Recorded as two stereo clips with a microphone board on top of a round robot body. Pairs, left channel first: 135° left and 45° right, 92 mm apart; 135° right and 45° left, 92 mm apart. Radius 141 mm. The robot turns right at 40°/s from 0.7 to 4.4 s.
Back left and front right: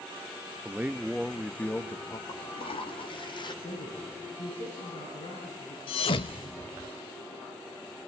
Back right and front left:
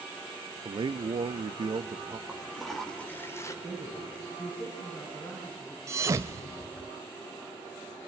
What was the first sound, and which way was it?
A man speaking, 25° left.